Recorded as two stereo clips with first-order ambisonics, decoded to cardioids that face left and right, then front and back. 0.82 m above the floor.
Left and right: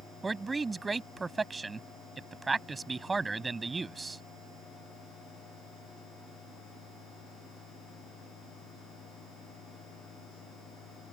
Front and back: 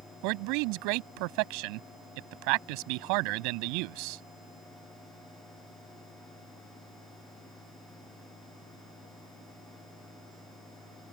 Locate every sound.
0.2 s a man speaking: 170° right